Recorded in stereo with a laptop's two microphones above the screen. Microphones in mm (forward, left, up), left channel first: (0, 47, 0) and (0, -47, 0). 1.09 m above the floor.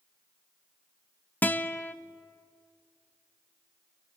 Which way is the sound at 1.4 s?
15° left (ahead or behind).